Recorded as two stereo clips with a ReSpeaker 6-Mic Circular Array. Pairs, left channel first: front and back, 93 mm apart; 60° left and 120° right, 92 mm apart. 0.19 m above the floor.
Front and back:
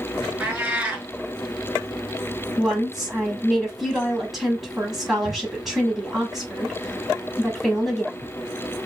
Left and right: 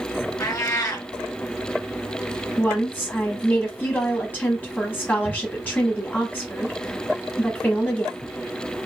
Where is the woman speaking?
95° left, 1.0 m.